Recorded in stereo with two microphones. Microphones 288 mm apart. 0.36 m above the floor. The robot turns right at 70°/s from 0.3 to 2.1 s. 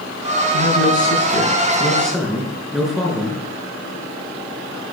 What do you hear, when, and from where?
0.5 s a man speaking: 70° left, 5.5 m; by 3.4 s straight behind, 5.5 m